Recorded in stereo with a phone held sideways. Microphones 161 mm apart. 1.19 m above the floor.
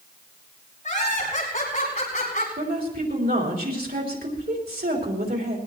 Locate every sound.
0.8 s laughter: 50° left (ahead or behind), 9.5 m
2.6 s a woman speaking: 80° right, 4 m